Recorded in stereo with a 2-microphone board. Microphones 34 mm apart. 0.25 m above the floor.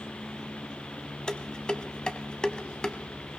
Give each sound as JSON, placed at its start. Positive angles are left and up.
{"t": 1.3, "sound": "dishes clattering", "side_deg": 25, "distance_m": 1.1}